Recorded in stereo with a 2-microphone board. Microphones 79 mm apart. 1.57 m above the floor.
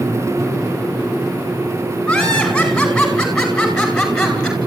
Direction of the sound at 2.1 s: 5° left (ahead or behind).